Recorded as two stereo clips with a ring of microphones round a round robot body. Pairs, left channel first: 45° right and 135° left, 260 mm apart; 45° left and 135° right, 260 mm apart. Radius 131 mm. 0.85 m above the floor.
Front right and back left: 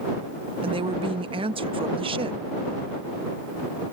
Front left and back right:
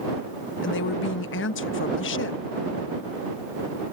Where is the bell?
No bell in this recording.